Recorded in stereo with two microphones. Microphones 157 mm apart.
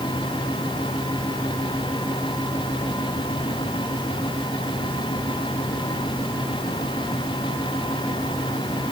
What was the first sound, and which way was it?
Only background noise.